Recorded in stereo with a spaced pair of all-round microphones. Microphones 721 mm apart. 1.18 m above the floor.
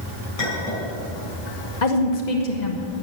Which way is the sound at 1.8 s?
75° left (ahead or behind).